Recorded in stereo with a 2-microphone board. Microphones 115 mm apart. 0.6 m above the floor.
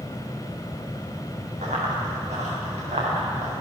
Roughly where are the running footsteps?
Right.